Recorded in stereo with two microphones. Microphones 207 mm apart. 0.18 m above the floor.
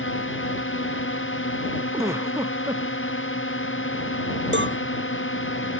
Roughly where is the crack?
No crack in this recording.